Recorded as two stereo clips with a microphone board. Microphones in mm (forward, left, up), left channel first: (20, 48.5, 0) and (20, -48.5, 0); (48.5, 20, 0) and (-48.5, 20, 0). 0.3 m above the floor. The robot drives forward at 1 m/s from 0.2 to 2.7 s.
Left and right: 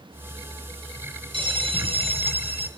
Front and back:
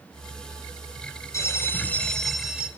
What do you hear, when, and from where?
1.3 s a bell: 60° right, 1.9 m; by 2.7 s 100° right, 1.6 m